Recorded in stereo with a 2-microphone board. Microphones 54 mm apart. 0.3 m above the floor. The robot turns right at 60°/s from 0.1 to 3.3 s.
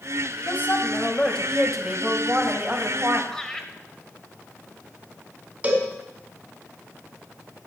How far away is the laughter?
About 1.3 m.